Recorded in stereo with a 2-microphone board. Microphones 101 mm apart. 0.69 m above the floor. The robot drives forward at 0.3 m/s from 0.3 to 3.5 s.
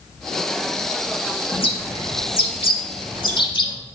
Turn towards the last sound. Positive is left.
turn(degrees=55)  # may be behind; listen again after turning